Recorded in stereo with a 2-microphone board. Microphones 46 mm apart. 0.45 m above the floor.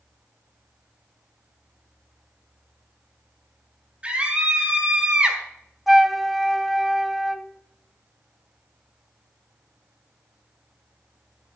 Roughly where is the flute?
Centre.